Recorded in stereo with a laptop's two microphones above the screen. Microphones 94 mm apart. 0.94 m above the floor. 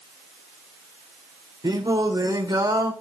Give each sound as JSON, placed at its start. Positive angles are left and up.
{"t": 1.6, "sound": "singing", "side_deg": -45, "distance_m": 3.5}